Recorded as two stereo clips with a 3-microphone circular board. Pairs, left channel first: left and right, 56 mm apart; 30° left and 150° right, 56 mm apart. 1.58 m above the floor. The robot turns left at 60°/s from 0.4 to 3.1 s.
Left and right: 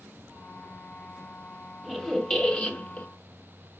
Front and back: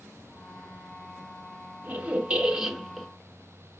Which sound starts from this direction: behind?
A squeak, at 1.8 s.